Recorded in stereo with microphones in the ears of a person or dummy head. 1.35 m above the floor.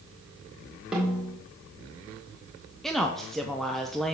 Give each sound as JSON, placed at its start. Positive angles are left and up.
{"t": 0.9, "sound": "a snare drum", "side_deg": -5, "distance_m": 1.9}
{"t": 2.8, "sound": "a woman speaking", "side_deg": 5, "distance_m": 0.6}